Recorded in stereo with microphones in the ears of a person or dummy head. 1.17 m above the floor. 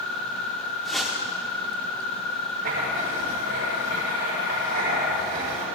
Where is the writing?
55° right (ahead or behind), 5 m.